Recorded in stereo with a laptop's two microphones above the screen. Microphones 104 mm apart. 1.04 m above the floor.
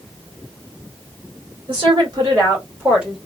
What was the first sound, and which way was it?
A woman speaking, 50° right (ahead or behind).